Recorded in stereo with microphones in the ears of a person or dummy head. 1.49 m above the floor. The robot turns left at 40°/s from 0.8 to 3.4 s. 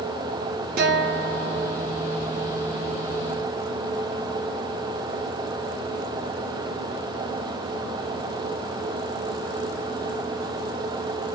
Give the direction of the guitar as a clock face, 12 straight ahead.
2 o'clock.